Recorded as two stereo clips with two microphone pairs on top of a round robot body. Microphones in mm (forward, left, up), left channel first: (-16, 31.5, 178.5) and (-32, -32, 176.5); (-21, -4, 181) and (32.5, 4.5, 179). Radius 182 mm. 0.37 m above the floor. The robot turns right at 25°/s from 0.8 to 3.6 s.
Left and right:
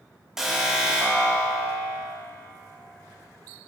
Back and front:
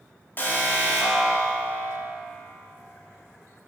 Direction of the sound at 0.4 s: Straight behind.